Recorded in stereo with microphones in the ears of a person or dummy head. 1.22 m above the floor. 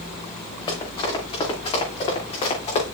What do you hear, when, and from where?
0.7 s running footsteps: 25° left (ahead or behind), 6.5 m; by 2.8 s 35° left (ahead or behind), 6 m